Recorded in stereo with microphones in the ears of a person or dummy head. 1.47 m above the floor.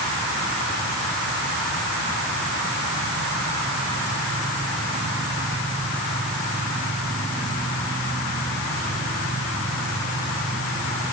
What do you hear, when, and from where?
Only background noise.